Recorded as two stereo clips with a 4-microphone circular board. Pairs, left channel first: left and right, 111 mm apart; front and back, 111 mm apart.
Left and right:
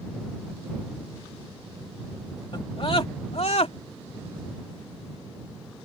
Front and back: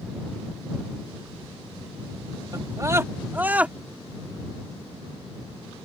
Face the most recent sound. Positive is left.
turn(degrees=100)